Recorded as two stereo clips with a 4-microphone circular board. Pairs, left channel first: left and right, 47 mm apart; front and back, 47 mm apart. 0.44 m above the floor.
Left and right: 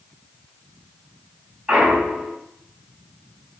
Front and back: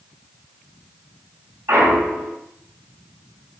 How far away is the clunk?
About 4 m.